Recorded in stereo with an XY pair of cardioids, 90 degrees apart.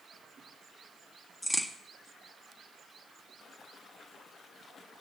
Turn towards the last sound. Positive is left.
turn(degrees=20)